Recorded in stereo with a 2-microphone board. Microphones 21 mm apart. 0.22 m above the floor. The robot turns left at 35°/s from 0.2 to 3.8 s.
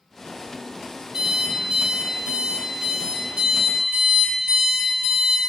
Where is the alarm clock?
55° right, 2 m; by 5.4 s 150° right, 2 m.